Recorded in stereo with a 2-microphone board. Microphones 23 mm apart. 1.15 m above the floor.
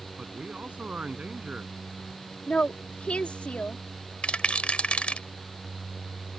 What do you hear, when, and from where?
0.2 s a man speaking: 80° right
2.5 s a woman speaking: 75° left (ahead or behind)
4.2 s a rattle: 65° left (ahead or behind)